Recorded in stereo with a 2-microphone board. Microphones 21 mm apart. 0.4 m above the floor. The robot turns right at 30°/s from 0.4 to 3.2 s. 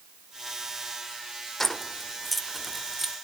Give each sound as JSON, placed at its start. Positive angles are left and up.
{"t": 1.6, "sound": "keys jangling", "side_deg": 15, "distance_m": 0.8}